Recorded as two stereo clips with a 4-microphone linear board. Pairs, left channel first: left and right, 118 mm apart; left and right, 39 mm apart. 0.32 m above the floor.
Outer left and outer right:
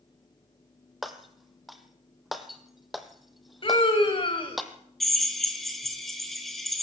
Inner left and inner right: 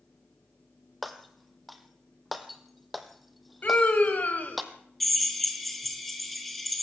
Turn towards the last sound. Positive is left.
turn(degrees=0)  # may be behind; listen again after turning